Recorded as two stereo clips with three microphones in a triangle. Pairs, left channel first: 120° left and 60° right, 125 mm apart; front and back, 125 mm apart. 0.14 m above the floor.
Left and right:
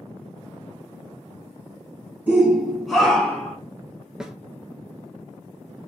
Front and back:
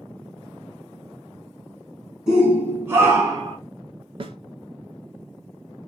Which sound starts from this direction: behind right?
A snare drum, at 4.2 s.